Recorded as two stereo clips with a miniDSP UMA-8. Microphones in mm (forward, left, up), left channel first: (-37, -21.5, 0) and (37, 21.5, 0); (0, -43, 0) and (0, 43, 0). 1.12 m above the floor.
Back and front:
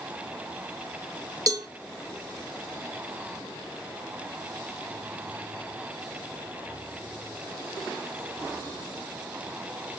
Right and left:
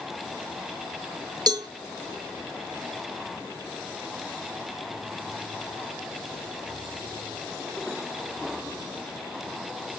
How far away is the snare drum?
No snare drum in this recording.